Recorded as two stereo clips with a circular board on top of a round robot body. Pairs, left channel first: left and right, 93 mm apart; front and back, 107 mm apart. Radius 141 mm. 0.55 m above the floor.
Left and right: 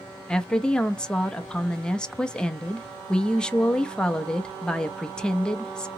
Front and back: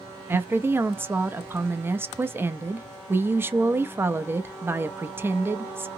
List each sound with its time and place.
0.3 s a woman speaking: 155° left, 0.7 m